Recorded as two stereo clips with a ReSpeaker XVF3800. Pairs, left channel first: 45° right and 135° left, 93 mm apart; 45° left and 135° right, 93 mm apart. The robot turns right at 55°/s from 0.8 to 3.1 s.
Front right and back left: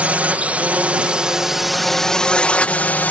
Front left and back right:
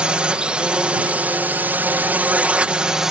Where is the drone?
170° left; by 3.1 s 60° right.